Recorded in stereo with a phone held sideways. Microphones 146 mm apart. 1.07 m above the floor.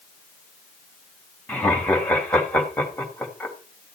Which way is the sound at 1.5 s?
10° left (ahead or behind).